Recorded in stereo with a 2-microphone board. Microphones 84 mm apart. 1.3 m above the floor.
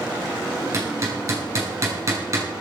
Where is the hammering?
40° right (ahead or behind), 6.5 m.